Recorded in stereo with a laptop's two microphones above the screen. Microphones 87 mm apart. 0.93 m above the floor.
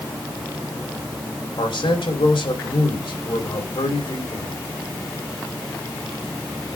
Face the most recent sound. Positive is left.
turn(degrees=85)